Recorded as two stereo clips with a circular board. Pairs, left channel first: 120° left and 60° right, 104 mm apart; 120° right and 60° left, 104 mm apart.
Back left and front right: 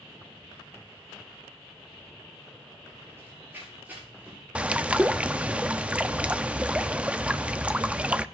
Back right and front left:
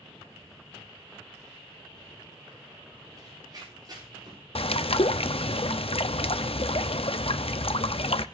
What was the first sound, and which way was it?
Running footsteps, 5° left.